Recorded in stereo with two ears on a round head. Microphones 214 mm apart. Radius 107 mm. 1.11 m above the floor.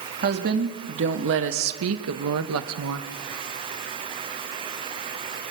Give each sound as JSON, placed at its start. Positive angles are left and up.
{"t": 0.2, "sound": "a woman speaking", "side_deg": -40, "distance_m": 2.5}